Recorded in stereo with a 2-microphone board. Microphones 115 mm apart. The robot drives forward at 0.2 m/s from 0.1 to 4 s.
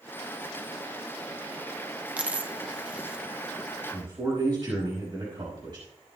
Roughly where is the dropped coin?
Centre.